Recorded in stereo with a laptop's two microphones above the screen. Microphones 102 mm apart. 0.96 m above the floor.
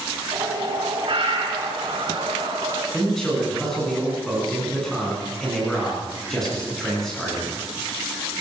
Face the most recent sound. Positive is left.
turn(degrees=5)  # may be behind; listen again after turning